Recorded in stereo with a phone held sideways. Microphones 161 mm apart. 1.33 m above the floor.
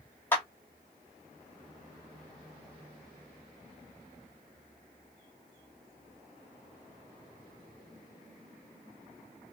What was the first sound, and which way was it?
A clap, 15° left (ahead or behind).